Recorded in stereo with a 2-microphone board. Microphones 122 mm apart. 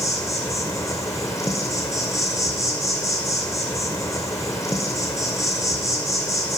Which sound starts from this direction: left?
An insect, at 0.0 s.